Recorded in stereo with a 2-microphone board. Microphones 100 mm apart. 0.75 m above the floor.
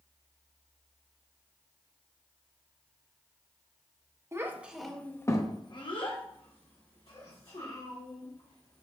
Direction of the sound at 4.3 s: 25° right (ahead or behind).